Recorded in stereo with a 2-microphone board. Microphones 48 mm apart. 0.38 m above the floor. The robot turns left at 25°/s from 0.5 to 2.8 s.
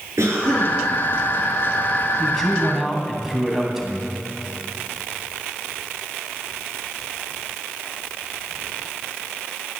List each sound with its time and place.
0.2 s a cough: 80° right, 6.5 m; by 0.8 s 75° right (ahead or behind), 6.5 m
2.2 s a man speaking: 5° left (ahead or behind), 3 m; by 4.1 s 10° right (ahead or behind), 3 m